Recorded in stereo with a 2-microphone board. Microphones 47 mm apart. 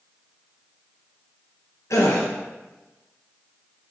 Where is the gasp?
85° left, 1.1 m.